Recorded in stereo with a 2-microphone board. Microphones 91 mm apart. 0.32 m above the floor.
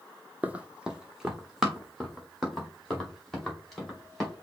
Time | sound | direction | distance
0.4 | running footsteps | 20° right (ahead or behind) | 0.6 m